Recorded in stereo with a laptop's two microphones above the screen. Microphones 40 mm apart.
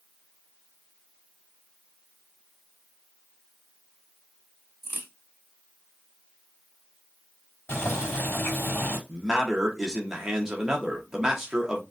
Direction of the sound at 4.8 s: 60° left (ahead or behind).